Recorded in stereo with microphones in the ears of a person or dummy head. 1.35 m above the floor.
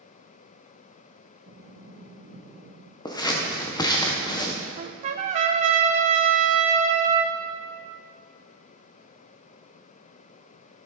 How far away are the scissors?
About 0.9 m.